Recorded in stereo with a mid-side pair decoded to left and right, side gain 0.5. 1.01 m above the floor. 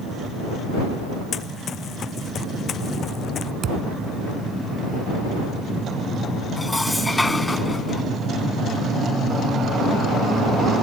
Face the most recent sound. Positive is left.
turn(degrees=15)